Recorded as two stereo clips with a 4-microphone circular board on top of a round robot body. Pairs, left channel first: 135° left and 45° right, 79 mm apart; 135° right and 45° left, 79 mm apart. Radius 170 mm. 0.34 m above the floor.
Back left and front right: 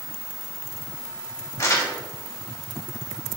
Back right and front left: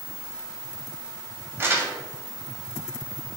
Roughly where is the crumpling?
Left.